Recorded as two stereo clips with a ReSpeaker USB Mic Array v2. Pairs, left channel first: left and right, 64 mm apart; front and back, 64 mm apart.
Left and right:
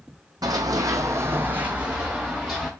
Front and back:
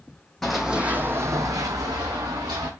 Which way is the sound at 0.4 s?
85° right.